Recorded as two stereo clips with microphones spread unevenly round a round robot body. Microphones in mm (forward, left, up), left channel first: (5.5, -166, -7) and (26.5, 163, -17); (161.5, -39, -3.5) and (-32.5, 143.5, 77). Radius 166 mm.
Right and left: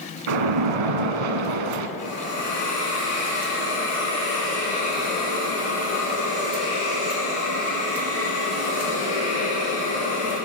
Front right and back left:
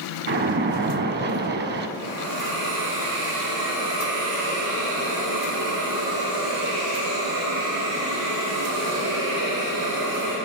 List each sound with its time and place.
0.3 s a splash: 80° left, 0.7 m
2.0 s a hiss: 165° left, 4 m